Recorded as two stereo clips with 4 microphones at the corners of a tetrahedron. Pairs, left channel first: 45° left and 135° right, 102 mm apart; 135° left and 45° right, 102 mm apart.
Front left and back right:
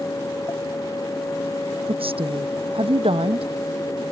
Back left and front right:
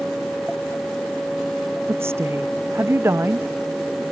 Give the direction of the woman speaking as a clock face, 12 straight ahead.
4 o'clock.